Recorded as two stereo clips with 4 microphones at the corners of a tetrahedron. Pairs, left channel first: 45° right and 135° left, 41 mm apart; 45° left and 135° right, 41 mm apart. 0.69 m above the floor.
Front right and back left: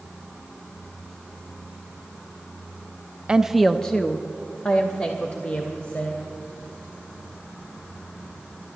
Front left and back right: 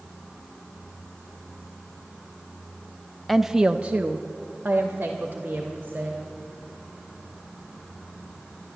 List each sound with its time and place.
3.3 s a woman speaking: 140° left, 0.5 m; by 6.2 s 85° right, 2.5 m